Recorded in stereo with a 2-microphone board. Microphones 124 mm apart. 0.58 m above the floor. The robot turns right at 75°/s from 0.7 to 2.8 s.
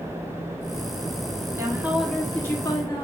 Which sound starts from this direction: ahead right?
A woman speaking, at 1.6 s.